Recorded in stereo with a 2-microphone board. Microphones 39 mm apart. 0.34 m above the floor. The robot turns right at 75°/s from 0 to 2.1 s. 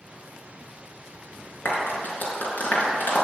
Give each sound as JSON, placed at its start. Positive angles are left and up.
{"t": 1.6, "sound": "a clap", "side_deg": 75, "distance_m": 4.5}